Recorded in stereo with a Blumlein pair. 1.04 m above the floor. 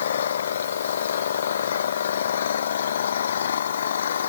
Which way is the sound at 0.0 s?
65° left.